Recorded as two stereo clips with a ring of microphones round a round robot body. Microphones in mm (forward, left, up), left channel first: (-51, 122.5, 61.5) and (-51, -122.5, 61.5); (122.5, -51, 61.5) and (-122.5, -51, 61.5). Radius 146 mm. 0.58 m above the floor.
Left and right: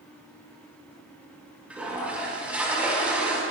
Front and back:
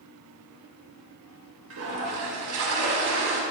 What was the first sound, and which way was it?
A toilet flushing, 175° right.